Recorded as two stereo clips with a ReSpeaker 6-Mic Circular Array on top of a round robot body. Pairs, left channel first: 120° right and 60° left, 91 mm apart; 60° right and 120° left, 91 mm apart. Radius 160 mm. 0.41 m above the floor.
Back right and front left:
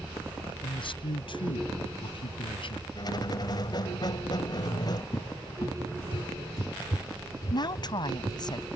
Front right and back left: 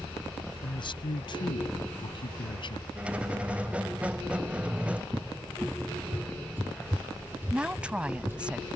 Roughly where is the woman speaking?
Behind.